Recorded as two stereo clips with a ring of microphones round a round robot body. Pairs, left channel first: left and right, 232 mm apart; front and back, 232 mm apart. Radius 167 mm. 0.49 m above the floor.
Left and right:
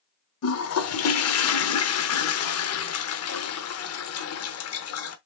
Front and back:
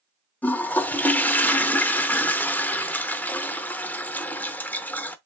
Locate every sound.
0.4 s a toilet flushing: 85° left, 0.8 m